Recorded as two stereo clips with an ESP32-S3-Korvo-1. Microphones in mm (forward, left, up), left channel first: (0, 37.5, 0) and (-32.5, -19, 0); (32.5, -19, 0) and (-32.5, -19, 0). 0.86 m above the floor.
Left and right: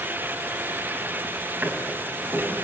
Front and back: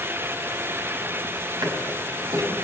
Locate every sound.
1.6 s a drawer: straight behind, 4 m